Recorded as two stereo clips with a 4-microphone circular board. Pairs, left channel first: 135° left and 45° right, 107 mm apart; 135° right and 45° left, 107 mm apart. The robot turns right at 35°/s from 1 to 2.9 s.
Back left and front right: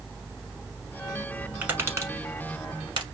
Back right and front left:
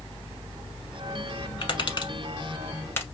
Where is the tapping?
115° right, 0.9 m; by 3.0 s 70° right, 0.9 m.